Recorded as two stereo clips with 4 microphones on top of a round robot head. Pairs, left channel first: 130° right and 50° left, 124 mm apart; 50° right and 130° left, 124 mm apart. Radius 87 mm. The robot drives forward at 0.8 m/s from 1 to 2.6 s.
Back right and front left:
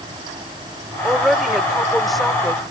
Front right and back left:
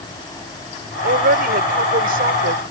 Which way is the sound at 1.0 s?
140° left.